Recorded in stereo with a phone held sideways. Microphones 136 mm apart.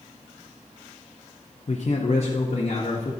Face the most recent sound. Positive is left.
turn(degrees=50)  # may be behind; listen again after turning